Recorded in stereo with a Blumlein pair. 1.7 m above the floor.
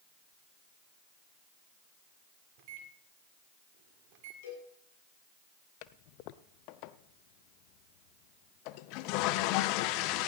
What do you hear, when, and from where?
2.6 s a microwave: 45° right, 1.4 m
4.4 s a cowbell: 55° left, 7 m
5.8 s a toilet flushing: 45° left, 0.5 m